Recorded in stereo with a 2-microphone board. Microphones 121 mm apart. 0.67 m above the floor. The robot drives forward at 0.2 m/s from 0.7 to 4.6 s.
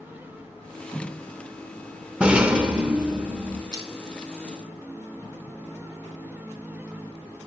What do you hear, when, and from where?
2.2 s a rattle: 10° right (ahead or behind), 0.5 m; by 3.6 s 5° right (ahead or behind), 0.8 m
3.7 s crushing: 30° right (ahead or behind), 0.9 m